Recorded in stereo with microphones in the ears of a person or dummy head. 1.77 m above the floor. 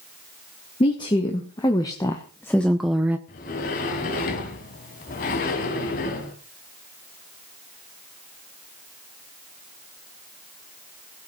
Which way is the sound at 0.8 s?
25° left (ahead or behind).